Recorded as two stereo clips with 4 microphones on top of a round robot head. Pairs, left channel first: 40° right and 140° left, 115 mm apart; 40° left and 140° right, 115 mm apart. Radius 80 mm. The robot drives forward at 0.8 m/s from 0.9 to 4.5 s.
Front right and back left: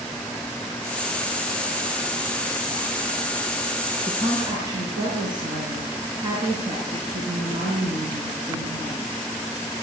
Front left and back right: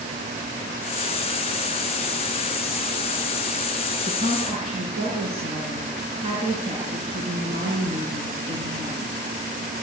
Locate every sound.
4.1 s a woman speaking: 170° right, 6 m